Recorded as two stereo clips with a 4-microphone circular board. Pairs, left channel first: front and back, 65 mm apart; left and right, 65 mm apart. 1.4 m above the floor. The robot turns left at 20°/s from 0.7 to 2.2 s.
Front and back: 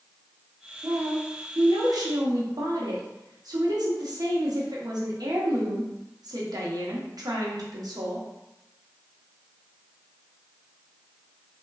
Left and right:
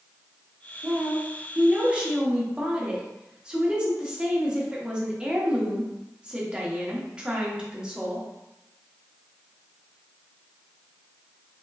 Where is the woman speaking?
140° right, 0.8 m; by 8.3 s 165° right, 0.8 m.